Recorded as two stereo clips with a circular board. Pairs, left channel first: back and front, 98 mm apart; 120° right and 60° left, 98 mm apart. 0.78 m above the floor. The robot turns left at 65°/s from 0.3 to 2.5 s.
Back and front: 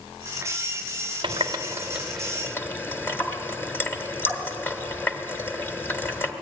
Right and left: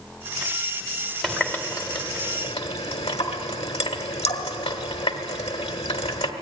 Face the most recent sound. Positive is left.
turn(degrees=-115)